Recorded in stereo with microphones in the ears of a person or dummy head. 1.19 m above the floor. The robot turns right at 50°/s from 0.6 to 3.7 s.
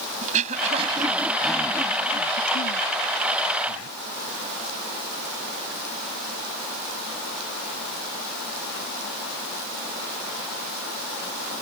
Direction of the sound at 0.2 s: 35° right (ahead or behind).